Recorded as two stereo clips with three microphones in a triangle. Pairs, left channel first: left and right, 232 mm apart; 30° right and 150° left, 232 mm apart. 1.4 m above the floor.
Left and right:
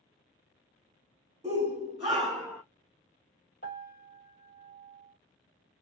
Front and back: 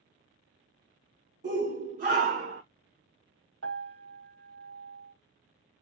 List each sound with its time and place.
1.4 s a shout: 150° right, 1.1 m; by 2.6 s 175° right, 0.5 m
3.6 s a piano: 135° left, 1.1 m